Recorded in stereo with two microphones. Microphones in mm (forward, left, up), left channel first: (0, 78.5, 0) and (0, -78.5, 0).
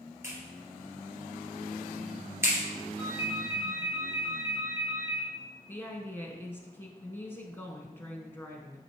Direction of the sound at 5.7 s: 15° left (ahead or behind).